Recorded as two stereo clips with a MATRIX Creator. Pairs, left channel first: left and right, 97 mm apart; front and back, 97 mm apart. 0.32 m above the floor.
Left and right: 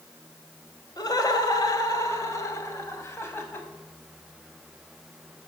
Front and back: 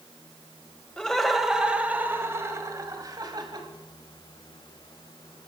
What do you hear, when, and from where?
1.0 s laughter: 75° left, 1.8 m; by 3.7 s 155° left, 2.5 m